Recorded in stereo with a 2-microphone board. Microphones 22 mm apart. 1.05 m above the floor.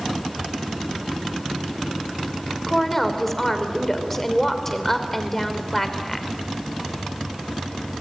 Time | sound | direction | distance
2.7 | a woman speaking | 20° left (ahead or behind) | 3 m